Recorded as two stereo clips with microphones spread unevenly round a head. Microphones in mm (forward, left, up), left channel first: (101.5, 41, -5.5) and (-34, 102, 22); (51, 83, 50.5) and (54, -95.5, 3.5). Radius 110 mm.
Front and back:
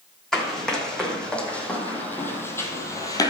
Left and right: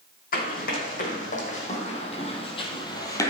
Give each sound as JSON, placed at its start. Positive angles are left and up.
{"t": 0.3, "sound": "running footsteps", "azimuth_deg": 70, "distance_m": 4.5}